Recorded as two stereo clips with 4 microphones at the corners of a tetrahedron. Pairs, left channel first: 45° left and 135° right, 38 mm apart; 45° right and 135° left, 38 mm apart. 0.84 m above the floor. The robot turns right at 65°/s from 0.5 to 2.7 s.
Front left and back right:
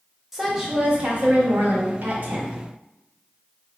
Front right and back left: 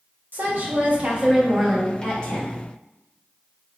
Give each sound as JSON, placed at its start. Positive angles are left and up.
{"t": 0.3, "sound": "a woman speaking", "azimuth_deg": 145, "distance_m": 1.3}